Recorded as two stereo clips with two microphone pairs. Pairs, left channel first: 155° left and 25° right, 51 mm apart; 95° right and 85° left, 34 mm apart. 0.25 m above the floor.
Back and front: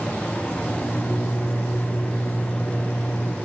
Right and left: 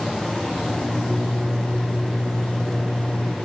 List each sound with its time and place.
0.6 s a microwave: 150° right, 8 m